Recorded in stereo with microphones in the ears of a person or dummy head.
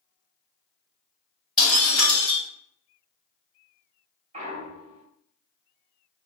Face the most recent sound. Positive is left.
turn(degrees=-35)  # may be behind; listen again after turning